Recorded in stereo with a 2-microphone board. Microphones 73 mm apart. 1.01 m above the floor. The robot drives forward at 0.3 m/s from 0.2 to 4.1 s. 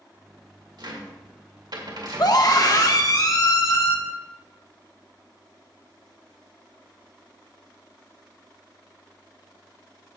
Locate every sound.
0.8 s a cupboard door: 75° right (ahead or behind), 2 m; by 2.4 s 65° right (ahead or behind), 2.5 m
2.2 s a scream: 55° left (ahead or behind), 1.1 m; by 4.0 s 45° left (ahead or behind), 1.3 m